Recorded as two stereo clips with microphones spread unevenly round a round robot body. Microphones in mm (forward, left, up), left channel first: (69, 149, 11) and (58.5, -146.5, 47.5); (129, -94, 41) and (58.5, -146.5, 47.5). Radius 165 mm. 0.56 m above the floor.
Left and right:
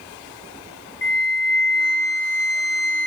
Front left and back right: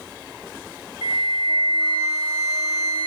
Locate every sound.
1.0 s a flute: 35° left, 1.0 m